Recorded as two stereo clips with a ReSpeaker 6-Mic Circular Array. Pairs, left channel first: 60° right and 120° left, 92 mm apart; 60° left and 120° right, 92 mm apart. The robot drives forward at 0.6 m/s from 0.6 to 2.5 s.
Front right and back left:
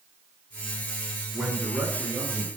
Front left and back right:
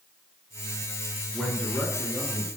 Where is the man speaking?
45° left, 1.1 m; by 2.5 s 150° left, 1.1 m.